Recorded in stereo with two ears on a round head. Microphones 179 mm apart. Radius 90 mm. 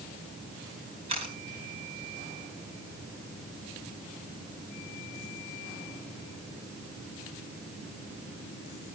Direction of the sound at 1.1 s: 30° right (ahead or behind).